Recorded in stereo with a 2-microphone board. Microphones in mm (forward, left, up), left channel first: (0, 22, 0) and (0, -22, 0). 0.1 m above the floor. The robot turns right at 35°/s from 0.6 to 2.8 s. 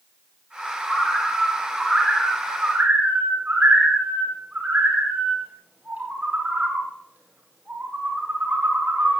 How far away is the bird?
About 9.5 m.